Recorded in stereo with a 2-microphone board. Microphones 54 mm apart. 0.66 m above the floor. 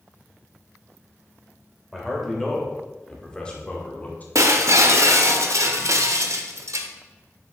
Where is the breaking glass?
65° right (ahead or behind), 0.9 m.